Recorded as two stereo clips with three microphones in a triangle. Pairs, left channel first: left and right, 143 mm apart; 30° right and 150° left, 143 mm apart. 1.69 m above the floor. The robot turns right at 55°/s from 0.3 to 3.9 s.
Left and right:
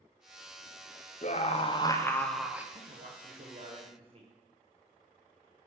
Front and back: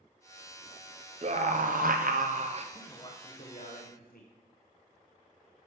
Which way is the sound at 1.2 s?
115° left.